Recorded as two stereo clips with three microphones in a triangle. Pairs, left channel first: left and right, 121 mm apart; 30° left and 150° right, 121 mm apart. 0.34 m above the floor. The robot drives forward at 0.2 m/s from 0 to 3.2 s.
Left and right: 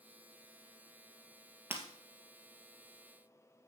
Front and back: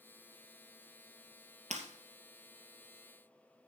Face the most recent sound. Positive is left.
turn(degrees=-165)